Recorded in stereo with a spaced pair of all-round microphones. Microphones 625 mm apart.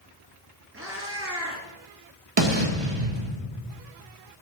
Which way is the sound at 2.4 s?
45° right (ahead or behind).